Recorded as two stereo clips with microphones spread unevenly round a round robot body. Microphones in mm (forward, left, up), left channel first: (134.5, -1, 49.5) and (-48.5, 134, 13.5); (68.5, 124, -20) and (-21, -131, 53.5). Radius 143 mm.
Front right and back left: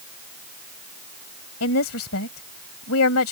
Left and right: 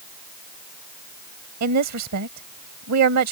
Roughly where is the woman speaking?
Right.